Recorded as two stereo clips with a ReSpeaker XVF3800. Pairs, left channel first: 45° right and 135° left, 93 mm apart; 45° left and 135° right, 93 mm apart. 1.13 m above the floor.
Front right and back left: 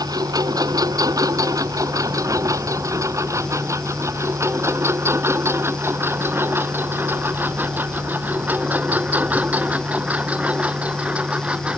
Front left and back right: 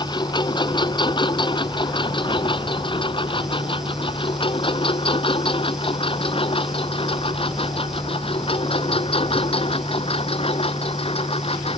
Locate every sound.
0.0 s a lawn mower: 85° left; by 11.8 s 55° left